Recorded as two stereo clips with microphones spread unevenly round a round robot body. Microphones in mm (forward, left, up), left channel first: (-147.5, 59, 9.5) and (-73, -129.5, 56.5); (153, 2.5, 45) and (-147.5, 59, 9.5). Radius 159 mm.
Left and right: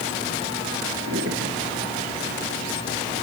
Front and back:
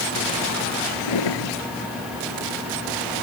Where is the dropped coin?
I don't hear a dropped coin.